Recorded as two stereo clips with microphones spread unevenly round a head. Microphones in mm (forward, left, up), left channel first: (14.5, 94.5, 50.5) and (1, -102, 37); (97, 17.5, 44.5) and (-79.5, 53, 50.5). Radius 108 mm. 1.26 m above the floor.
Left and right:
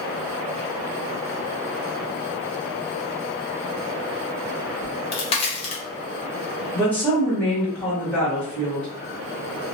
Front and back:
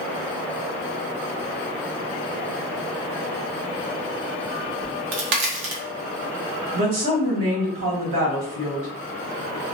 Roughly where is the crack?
Behind left.